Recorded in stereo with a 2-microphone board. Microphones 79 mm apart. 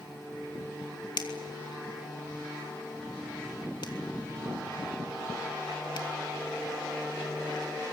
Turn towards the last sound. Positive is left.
turn(degrees=70)  # may be behind; listen again after turning